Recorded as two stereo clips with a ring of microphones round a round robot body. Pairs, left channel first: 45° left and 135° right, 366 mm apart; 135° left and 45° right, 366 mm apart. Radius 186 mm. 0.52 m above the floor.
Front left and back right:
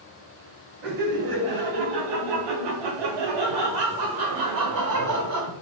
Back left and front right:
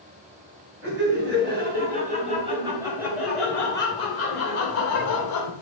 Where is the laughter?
105° right, 3.5 m; by 5.5 s 175° left, 2 m.